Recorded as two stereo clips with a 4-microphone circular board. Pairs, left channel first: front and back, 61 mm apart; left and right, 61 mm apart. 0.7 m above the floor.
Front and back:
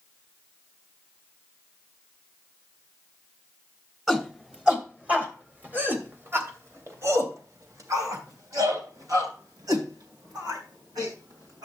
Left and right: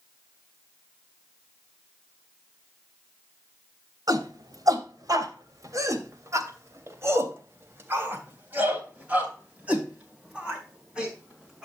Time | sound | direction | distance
4.1 | a shout | 95° right | 2.5 m